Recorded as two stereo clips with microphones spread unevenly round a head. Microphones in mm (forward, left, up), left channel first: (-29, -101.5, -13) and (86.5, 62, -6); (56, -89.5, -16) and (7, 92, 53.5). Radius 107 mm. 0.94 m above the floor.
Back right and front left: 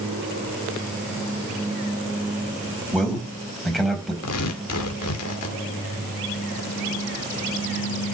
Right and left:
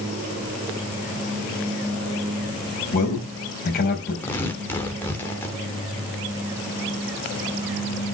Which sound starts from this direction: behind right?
Tearing paper, at 4.2 s.